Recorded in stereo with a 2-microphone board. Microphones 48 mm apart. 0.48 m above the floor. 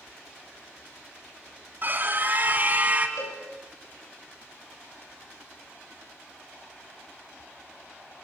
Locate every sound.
1.8 s a scream: 40° right (ahead or behind), 4 m; by 3.1 s 30° right (ahead or behind), 3.5 m
3.2 s a cowbell: 85° left, 8 m